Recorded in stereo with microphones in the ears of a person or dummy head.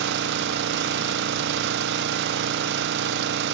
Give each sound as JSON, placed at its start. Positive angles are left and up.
{"t": 0.0, "sound": "an engine running", "side_deg": -65, "distance_m": 0.8}